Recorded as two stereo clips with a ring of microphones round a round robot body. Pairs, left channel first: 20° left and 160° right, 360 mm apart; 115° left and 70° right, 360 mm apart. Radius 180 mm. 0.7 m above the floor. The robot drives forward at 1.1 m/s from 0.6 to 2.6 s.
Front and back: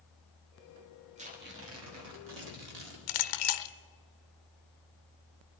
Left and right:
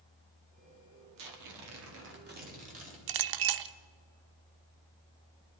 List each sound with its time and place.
1.2 s tearing paper: 85° right, 1.8 m; by 3.0 s 135° right, 2.5 m
3.1 s a clink: 30° right, 0.5 m